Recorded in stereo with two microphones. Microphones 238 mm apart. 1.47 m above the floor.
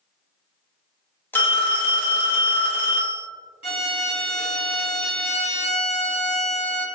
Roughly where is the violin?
Left.